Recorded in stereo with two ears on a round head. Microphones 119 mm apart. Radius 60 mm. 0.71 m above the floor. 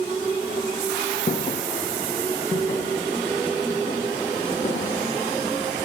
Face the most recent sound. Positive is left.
turn(degrees=40)  # may be behind; listen again after turning